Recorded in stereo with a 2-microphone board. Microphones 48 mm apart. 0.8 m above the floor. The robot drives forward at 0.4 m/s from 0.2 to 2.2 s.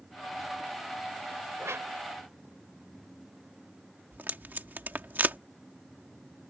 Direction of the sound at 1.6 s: 70° right (ahead or behind).